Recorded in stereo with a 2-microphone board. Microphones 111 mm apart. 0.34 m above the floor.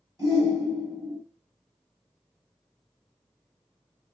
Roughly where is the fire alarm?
I don't hear a fire alarm.